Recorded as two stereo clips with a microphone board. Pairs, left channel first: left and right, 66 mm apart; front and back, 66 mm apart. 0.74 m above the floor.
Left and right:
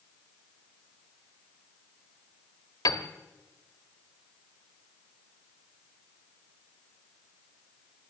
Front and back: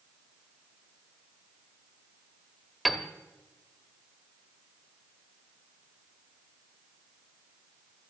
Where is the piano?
90° left, 1.1 m.